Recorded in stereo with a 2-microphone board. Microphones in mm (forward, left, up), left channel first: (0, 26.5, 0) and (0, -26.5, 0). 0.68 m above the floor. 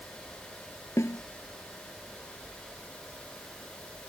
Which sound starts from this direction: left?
A snare drum, at 1.0 s.